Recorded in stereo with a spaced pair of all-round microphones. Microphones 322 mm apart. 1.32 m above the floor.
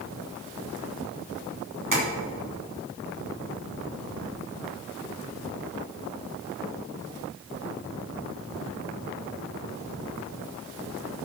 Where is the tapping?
75° right (ahead or behind), 2.5 m.